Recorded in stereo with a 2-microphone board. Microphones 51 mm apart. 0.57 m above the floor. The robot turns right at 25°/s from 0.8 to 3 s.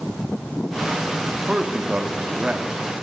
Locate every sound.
1.5 s a man speaking: 20° right (ahead or behind), 0.8 m